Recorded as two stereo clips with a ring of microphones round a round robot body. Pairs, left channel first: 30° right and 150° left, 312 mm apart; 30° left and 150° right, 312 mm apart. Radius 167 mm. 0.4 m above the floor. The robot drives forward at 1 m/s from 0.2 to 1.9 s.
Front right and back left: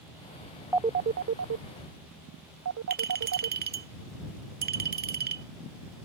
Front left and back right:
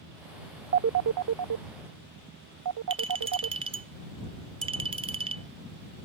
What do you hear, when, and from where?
0.7 s a phone ringing: 130° right; by 3.6 s 170° right
2.9 s a clink: 155° left